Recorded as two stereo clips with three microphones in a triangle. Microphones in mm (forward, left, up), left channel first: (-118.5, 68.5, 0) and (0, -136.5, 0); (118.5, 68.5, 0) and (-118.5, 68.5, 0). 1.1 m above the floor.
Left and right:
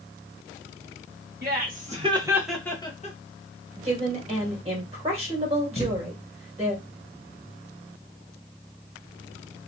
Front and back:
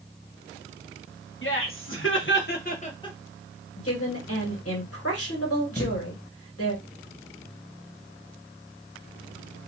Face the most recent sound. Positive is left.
turn(degrees=75)